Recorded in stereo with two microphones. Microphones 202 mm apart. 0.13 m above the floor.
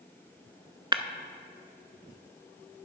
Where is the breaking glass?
20° right (ahead or behind), 0.6 m.